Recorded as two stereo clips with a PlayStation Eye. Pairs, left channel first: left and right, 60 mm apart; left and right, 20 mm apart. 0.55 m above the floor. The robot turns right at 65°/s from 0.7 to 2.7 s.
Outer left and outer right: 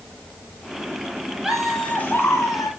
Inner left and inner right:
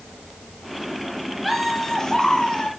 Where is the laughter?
10° right, 4.5 m; by 2.7 s 70° left, 4.5 m.